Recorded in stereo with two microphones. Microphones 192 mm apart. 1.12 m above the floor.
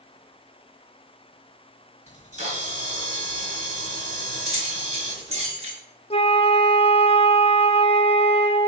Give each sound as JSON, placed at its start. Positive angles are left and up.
{"t": 2.1, "sound": "a camera shutter", "side_deg": -35, "distance_m": 3.5}
{"t": 4.5, "sound": "keys jangling", "side_deg": -35, "distance_m": 3.0}
{"t": 6.1, "sound": "a flute", "side_deg": 30, "distance_m": 0.6}